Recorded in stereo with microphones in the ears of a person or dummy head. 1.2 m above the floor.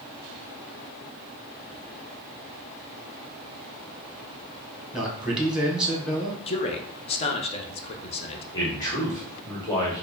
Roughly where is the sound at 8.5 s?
Left.